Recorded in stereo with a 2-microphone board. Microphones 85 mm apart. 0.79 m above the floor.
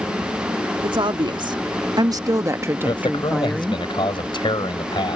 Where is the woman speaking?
70° right (ahead or behind); by 3.8 s 10° left (ahead or behind).